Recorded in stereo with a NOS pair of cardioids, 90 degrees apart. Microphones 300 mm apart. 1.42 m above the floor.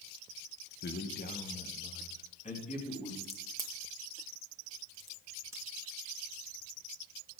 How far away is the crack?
About 2 m.